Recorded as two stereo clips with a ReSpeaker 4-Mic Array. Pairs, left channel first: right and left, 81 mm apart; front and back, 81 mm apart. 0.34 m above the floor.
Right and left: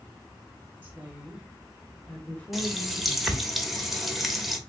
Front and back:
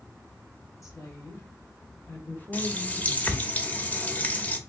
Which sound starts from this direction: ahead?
A running tap, at 2.5 s.